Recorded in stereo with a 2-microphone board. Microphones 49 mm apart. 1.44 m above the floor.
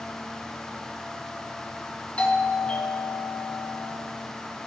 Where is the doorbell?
25° left (ahead or behind), 1.7 m.